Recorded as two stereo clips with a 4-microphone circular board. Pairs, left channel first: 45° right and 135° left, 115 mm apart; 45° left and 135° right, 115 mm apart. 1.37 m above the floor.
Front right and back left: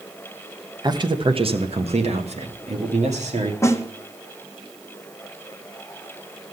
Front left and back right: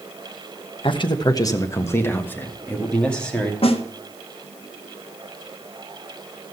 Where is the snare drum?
20° left, 1.1 m.